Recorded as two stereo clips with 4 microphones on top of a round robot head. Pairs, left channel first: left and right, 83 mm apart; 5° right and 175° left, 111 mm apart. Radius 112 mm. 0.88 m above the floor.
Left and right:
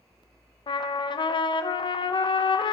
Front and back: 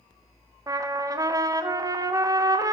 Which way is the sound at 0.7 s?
115° left.